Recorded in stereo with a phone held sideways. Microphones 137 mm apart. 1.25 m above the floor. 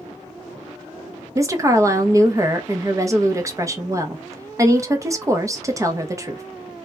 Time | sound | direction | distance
1.4 | a woman speaking | 25° right (ahead or behind) | 0.6 m